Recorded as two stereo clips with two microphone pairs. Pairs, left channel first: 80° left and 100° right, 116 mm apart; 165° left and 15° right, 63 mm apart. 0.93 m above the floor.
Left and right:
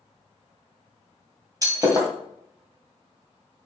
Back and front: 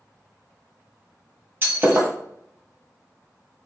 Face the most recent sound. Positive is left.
turn(degrees=-55)